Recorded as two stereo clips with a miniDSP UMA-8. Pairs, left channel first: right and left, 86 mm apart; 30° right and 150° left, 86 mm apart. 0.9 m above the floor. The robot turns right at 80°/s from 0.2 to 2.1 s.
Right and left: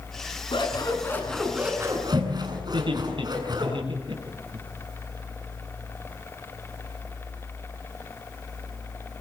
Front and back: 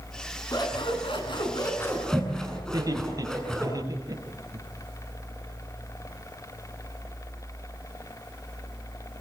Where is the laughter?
105° left, 8 m.